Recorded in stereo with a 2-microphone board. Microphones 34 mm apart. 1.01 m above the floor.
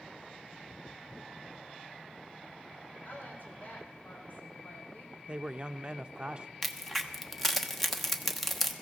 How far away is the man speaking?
About 0.5 m.